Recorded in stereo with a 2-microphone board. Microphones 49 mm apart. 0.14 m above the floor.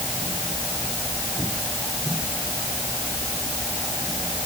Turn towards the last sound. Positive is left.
No sound to turn to.